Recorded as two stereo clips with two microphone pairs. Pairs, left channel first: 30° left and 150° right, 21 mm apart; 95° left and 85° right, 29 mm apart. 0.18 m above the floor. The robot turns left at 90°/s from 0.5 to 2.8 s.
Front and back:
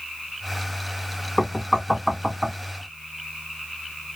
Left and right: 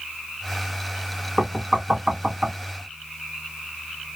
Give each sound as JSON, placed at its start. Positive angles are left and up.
{"t": 1.4, "sound": "knocking", "azimuth_deg": -10, "distance_m": 2.0}